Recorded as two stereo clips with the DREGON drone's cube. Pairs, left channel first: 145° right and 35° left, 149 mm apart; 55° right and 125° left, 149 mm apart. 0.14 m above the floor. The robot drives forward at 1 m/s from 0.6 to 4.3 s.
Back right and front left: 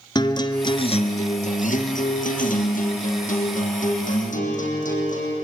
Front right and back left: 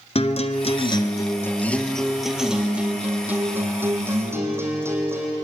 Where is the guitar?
90° right, 1.2 m; by 5.3 s 165° right, 4 m.